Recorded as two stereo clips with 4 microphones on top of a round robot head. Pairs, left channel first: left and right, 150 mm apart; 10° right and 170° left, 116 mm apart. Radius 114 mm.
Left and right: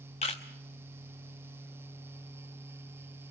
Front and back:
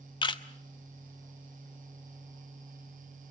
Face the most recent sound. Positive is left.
turn(degrees=30)